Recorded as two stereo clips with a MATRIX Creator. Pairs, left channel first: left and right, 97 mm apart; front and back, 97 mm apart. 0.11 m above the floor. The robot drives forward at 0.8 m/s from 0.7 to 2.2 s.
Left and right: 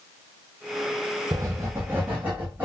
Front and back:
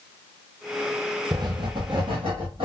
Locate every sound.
1.3 s writing: 135° right, 0.6 m; by 2.6 s 160° right, 1.2 m